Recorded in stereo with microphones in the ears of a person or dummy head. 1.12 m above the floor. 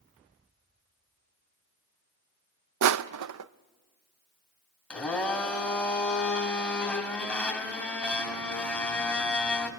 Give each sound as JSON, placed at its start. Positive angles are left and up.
{"t": 2.8, "sound": "crushing", "side_deg": -85, "distance_m": 0.6}
{"t": 4.9, "sound": "a blender", "side_deg": 5, "distance_m": 2.5}